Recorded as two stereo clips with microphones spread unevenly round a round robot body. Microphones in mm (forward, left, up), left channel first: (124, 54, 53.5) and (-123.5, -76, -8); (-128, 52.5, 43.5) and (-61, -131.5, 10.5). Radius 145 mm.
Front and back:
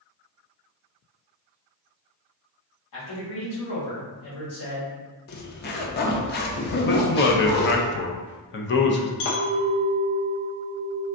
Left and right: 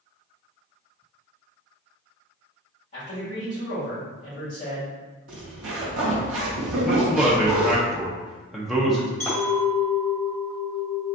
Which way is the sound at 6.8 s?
Straight ahead.